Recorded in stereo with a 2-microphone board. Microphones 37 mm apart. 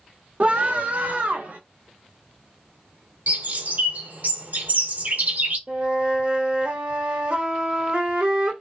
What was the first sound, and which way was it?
A scream, 45° right (ahead or behind).